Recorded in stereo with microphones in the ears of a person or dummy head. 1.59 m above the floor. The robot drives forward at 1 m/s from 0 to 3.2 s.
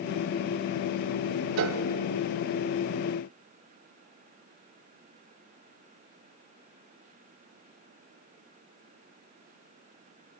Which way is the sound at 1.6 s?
60° right (ahead or behind).